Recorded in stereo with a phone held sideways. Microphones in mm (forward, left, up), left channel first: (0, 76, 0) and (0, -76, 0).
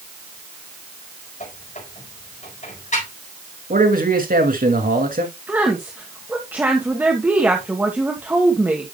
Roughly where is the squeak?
Left.